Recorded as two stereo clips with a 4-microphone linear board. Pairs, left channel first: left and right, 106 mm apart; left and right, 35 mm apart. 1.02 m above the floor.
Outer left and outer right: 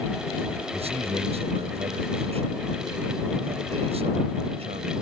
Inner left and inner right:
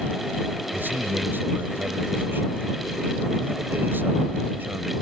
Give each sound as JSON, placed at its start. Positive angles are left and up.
{"t": 0.7, "sound": "a man speaking", "side_deg": -65}